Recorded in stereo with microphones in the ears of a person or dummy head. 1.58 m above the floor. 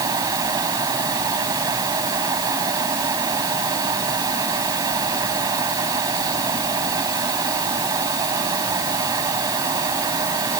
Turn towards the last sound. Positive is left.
turn(degrees=-20)  # may be behind; listen again after turning